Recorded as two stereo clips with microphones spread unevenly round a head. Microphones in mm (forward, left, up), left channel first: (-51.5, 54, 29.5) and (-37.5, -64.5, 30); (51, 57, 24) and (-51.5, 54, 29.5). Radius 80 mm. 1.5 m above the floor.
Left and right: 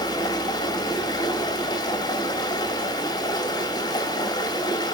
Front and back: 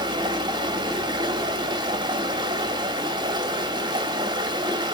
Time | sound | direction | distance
0.0 | running water | 150° left | 1.7 m